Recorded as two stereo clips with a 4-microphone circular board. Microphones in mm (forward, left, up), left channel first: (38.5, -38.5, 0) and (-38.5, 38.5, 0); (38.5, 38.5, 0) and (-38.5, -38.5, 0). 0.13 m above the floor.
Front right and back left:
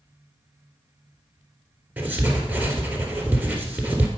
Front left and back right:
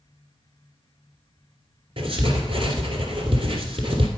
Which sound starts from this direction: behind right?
Writing, at 2.0 s.